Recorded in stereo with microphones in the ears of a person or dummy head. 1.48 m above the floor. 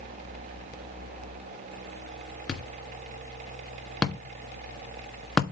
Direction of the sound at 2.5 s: Centre (ahead or behind).